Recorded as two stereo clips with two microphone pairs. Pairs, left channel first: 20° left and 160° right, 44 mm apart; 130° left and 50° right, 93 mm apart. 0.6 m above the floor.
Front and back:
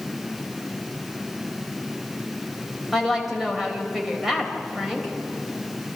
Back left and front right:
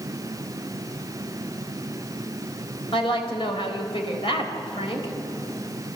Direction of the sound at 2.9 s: 120° left.